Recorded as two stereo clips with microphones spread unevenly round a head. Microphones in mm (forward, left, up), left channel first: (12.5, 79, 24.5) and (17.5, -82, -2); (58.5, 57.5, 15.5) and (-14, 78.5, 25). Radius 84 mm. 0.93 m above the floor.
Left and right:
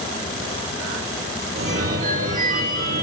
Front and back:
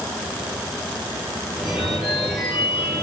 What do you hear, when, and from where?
1.6 s a phone ringing: 110° right, 6 m